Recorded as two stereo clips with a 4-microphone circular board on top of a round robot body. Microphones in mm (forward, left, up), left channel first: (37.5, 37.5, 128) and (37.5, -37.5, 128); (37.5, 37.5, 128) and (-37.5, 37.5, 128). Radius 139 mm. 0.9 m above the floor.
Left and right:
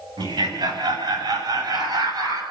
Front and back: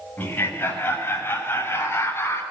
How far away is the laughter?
About 7 m.